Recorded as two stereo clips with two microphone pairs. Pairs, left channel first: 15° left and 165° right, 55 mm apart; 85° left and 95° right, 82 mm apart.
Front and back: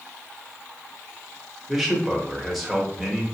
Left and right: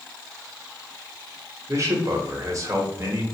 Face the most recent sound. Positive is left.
turn(degrees=-80)